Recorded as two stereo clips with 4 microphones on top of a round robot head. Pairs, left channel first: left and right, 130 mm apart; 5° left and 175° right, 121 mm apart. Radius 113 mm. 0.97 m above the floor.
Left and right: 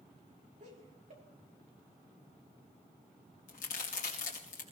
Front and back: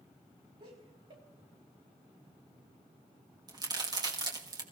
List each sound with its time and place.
0.6 s laughter: 125° right, 4.5 m
3.5 s a crack: 130° left, 2.5 m